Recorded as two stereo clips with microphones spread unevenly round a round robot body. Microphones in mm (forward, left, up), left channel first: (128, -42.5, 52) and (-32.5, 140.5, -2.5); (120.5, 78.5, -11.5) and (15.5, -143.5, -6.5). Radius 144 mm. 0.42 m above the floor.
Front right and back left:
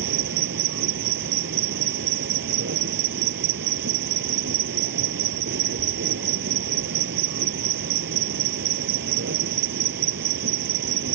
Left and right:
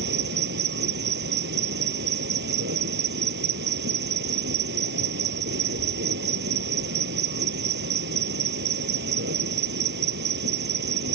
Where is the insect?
175° right.